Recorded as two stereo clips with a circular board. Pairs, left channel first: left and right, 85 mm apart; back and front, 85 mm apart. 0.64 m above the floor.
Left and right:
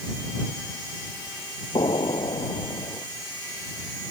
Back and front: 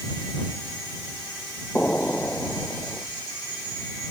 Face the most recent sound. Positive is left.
turn(degrees=110)